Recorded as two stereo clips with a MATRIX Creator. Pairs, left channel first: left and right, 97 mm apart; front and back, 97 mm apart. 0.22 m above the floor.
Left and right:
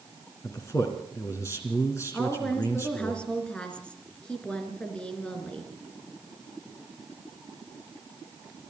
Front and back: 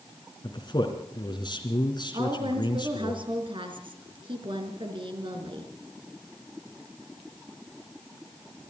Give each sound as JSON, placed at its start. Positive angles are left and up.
{"t": 0.4, "sound": "a man speaking", "azimuth_deg": 35, "distance_m": 2.5}
{"t": 2.1, "sound": "a woman speaking", "azimuth_deg": 170, "distance_m": 3.5}